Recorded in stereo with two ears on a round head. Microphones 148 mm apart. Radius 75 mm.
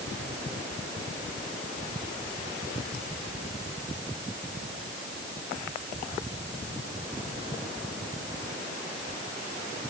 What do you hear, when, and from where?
Only background noise.